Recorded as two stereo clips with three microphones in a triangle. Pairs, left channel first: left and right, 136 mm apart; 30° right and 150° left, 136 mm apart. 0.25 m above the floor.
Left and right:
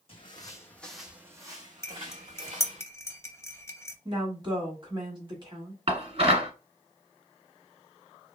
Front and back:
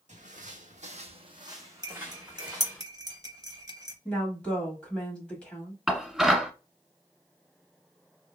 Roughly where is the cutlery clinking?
Behind left.